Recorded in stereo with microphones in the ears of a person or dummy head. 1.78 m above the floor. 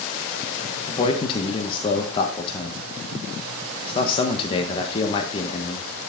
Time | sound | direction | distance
0.9 | a man speaking | 30° left (ahead or behind) | 1.6 m